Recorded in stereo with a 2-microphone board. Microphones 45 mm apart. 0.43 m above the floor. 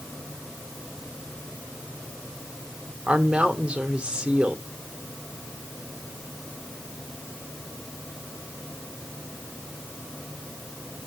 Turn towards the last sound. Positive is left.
turn(degrees=-20)  # may be behind; listen again after turning